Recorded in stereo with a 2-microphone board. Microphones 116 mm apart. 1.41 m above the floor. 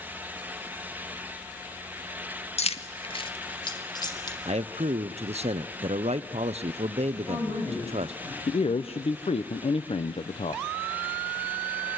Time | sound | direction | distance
2.6 | keys jangling | 65° left (ahead or behind) | 1.2 m
4.5 | a man speaking | 65° right (ahead or behind) | 0.7 m
7.1 | a woman speaking | 30° left (ahead or behind) | 8 m
8.5 | a man speaking | 60° left (ahead or behind) | 0.8 m